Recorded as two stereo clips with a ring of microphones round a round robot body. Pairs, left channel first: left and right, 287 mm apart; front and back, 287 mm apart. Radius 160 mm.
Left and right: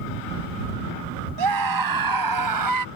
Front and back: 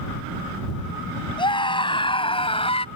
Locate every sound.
1.4 s a scream: 75° right; by 2.9 s 70° right